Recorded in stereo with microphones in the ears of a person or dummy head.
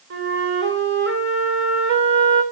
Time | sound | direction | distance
0.1 | a flute | 75° right (ahead or behind) | 3 m